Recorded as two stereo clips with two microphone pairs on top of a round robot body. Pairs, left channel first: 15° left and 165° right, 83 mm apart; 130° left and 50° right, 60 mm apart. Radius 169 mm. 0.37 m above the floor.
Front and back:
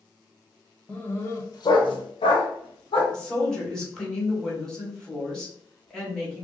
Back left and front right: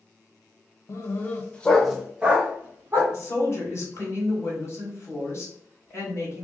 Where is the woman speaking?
95° left, 1.8 m.